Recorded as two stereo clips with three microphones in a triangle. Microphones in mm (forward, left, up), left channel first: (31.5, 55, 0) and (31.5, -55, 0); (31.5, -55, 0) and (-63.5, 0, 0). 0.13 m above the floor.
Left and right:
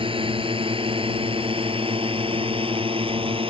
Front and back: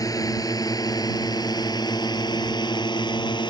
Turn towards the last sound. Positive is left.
turn(degrees=-70)